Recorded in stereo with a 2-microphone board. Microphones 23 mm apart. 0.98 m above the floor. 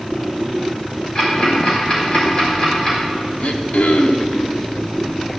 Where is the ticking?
35° left (ahead or behind), 5 m.